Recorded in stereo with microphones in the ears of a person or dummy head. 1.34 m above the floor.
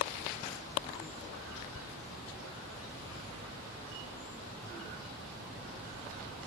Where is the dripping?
I don't hear dripping.